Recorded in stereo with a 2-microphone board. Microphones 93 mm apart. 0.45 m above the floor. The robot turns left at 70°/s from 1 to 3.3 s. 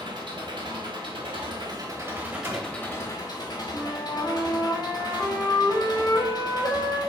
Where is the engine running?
75° right, 1.3 m; by 7.1 s 125° left, 1.3 m.